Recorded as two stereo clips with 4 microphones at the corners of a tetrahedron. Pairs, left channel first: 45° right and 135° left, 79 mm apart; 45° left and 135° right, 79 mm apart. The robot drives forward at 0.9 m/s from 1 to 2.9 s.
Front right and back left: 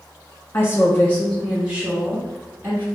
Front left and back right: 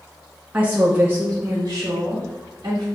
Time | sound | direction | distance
0.5 | a woman speaking | 80° right | 0.6 m